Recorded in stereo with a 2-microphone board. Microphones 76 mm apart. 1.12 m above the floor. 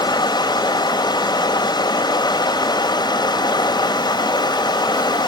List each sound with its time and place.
0.0 s running water: 75° left (ahead or behind), 2 m